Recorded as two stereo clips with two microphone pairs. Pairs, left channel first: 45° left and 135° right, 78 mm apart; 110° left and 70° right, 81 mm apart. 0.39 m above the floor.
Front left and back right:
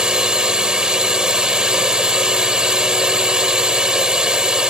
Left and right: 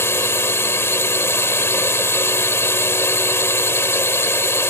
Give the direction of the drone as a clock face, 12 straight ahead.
7 o'clock.